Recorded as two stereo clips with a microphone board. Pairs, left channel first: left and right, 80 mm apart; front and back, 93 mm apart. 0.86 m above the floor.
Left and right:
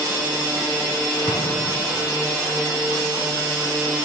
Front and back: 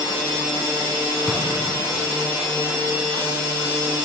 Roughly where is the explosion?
Left.